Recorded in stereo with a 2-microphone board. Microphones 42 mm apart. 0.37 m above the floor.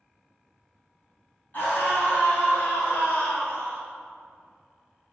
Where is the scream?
45° left (ahead or behind), 2.5 m; by 3.8 s 60° left (ahead or behind), 3.5 m.